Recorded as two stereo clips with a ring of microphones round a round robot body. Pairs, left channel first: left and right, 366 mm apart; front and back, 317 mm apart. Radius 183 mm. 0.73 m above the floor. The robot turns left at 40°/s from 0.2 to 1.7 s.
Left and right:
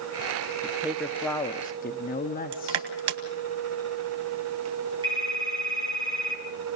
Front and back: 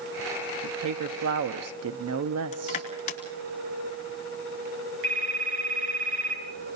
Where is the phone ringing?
170° right, 7 m.